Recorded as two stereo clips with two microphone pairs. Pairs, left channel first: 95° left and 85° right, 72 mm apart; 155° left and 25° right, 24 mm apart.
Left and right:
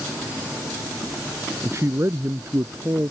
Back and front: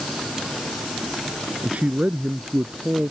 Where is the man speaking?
40° right; by 3.1 s 35° right.